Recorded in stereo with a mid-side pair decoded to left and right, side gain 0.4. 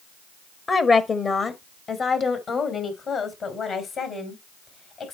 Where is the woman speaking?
45° left, 1.1 m; by 5.1 s 65° left, 4 m.